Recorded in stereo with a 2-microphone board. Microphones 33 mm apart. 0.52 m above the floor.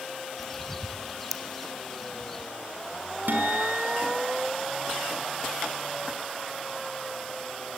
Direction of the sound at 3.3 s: 80° right.